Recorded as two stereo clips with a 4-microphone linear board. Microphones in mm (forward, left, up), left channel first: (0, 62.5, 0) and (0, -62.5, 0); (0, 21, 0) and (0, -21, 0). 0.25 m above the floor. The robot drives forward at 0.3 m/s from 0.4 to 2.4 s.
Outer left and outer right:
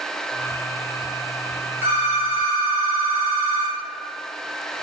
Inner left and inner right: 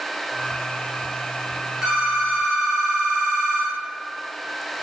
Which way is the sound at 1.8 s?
20° right (ahead or behind).